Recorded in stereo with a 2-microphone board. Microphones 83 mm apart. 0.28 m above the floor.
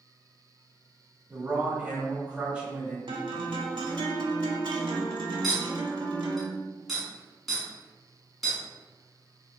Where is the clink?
Centre (ahead or behind), 1.9 m.